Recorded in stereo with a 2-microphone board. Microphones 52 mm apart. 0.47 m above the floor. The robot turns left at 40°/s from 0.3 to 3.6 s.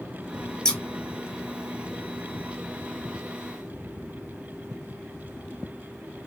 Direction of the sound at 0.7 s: 15° left (ahead or behind).